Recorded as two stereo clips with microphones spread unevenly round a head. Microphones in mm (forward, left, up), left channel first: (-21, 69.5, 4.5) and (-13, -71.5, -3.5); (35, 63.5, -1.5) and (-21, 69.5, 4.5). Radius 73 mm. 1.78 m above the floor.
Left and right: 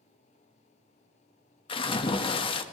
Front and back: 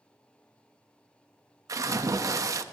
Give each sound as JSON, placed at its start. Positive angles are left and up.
{"t": 1.7, "sound": "a splash", "azimuth_deg": 150, "distance_m": 1.0}